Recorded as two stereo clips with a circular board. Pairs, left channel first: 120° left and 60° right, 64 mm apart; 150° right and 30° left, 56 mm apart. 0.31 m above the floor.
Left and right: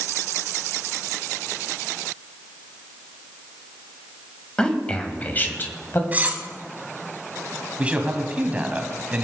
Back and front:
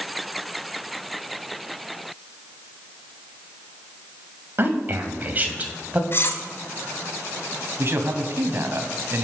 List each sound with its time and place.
4.6 s a man speaking: 50° left, 1.9 m; by 6.0 s 90° left, 2 m
6.1 s cutlery clinking: 115° right, 1.4 m
7.8 s a man speaking: 5° left, 1.8 m